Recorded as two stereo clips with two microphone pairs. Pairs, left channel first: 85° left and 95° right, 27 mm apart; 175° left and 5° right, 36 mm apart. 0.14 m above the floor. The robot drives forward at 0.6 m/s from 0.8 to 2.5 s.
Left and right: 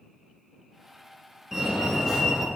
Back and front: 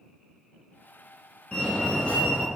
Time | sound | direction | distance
1.5 | a fire alarm | 165° right | 2 m